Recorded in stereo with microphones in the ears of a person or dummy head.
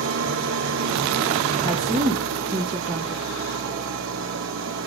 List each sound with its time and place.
0.0 s an engine running: 60° right (ahead or behind), 1.4 m
1.6 s a woman speaking: 15° right (ahead or behind), 0.9 m